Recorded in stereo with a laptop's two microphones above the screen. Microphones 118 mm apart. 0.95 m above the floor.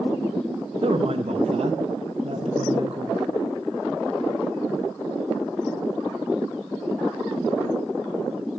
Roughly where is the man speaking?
Right.